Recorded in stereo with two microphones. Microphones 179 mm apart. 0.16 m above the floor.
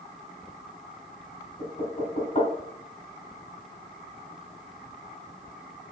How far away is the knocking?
About 1.2 m.